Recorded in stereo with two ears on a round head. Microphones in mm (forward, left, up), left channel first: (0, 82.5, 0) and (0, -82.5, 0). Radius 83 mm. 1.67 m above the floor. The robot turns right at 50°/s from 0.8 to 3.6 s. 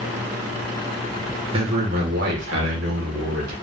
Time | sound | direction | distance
1.5 | a man speaking | 150° right | 1.9 m